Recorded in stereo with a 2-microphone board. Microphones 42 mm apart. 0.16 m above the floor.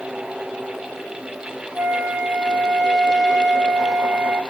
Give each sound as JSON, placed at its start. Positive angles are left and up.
{"t": 1.8, "sound": "a flute", "side_deg": -50, "distance_m": 1.0}